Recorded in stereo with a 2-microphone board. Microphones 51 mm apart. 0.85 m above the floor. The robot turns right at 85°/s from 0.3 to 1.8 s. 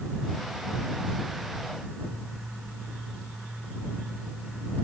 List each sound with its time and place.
Only background noise.